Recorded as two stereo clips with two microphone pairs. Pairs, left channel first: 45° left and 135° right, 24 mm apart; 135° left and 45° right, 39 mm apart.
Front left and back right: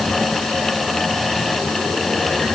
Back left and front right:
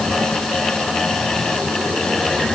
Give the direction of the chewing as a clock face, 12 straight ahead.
No chewing in this recording.